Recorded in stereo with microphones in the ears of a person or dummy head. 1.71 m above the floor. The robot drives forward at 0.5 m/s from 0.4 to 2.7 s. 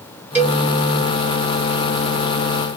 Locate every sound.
0.3 s a cowbell: 10° right (ahead or behind), 1.6 m